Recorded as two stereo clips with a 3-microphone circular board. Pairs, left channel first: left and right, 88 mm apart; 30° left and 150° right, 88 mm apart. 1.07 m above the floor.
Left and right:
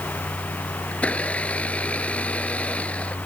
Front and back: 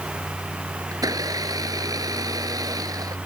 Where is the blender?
165° left.